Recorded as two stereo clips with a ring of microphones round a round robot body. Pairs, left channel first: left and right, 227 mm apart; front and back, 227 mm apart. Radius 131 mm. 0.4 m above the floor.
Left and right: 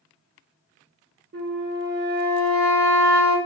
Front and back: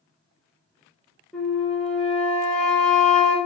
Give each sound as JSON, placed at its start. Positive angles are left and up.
{"t": 1.3, "sound": "a flute", "azimuth_deg": -85, "distance_m": 0.7}